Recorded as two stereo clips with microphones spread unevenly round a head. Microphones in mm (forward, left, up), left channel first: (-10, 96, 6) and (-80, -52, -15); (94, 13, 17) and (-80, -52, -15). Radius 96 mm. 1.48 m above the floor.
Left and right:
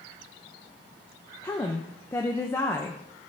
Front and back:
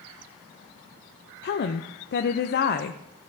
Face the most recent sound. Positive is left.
turn(degrees=-15)